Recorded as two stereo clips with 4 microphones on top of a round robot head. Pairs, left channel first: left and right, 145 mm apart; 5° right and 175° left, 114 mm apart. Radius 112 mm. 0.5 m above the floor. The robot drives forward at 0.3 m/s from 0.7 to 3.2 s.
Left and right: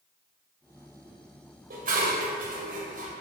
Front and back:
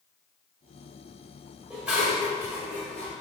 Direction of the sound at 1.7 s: 100° right.